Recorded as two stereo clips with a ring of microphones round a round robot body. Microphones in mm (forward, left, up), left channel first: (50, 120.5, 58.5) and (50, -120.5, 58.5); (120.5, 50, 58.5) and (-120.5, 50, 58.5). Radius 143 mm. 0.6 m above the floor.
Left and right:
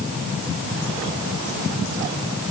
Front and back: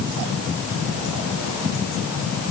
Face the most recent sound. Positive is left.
No sound to turn to.